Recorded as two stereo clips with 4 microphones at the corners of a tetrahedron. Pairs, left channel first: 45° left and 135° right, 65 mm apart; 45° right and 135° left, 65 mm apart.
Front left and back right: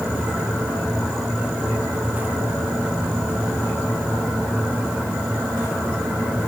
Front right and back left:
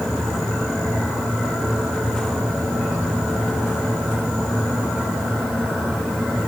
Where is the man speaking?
I don't hear a man speaking.